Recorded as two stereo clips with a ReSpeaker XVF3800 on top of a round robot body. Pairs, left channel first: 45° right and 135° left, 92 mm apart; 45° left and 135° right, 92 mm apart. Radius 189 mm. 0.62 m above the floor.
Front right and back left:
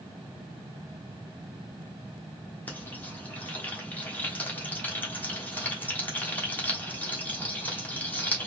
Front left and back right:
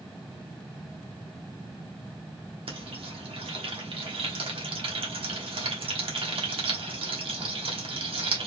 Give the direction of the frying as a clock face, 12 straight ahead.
4 o'clock.